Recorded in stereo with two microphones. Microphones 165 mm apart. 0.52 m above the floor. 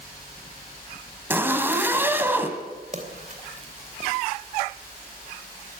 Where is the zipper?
15° right (ahead or behind), 2 m.